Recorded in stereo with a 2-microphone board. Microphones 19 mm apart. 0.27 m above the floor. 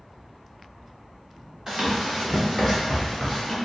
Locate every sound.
1.7 s running footsteps: 30° right (ahead or behind), 1.2 m; by 3.6 s 20° left (ahead or behind), 1.5 m